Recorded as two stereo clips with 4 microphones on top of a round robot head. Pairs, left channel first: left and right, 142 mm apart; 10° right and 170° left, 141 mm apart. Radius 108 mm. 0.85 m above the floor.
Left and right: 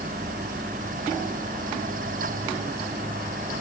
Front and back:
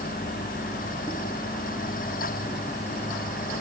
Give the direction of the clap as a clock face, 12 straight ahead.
No clap in this recording.